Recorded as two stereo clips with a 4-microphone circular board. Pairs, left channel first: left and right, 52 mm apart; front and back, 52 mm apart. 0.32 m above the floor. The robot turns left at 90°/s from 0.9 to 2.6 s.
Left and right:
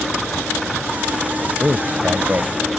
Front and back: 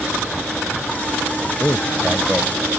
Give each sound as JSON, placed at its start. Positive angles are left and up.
{"t": 1.6, "sound": "a man speaking", "azimuth_deg": -35}